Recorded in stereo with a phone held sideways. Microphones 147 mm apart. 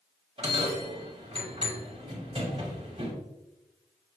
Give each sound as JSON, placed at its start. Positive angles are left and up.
{"t": 0.4, "sound": "a bell", "side_deg": -40, "distance_m": 2.0}